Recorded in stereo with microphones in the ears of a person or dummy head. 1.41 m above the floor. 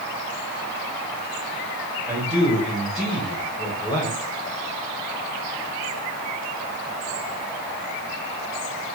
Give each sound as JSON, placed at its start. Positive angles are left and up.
{"t": 2.1, "sound": "a man speaking", "side_deg": -10, "distance_m": 2.0}